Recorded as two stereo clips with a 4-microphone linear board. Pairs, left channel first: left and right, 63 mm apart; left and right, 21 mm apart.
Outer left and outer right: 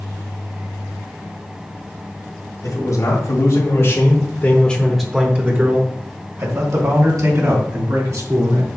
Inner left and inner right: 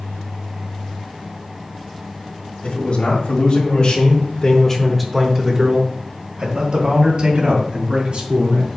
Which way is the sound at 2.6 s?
70° left (ahead or behind).